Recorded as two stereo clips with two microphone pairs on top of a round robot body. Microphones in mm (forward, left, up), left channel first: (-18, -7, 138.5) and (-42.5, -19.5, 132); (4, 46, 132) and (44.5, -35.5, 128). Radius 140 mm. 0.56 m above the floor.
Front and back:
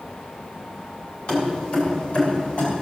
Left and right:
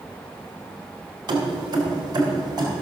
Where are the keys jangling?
25° right, 2.5 m; by 2.8 s 15° right, 4 m.